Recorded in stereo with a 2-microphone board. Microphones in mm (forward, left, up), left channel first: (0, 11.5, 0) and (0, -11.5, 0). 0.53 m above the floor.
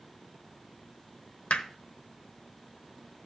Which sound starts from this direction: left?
Hammering, at 1.5 s.